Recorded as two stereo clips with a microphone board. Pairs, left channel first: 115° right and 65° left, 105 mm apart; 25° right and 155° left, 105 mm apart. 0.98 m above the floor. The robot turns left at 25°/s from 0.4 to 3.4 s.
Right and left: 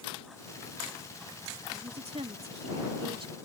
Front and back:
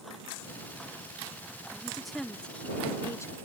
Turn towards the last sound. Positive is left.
turn(degrees=35)